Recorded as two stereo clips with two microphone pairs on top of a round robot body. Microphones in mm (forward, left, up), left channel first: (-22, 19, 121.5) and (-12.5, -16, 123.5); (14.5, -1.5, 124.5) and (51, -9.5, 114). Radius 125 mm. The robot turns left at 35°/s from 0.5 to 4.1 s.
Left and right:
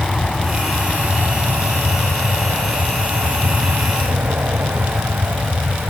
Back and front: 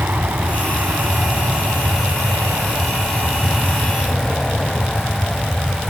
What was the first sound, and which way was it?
An aircraft, 25° left.